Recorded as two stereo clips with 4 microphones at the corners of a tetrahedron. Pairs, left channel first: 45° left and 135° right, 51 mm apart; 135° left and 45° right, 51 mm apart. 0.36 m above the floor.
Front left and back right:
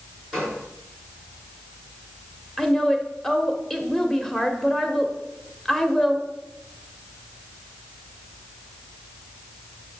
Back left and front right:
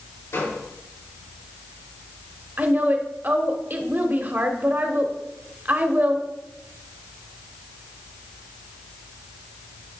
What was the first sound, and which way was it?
A gunshot, 130° left.